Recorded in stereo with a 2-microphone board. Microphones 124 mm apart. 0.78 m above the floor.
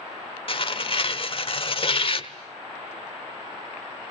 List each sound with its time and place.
0.5 s tearing paper: 45° left (ahead or behind), 1.1 m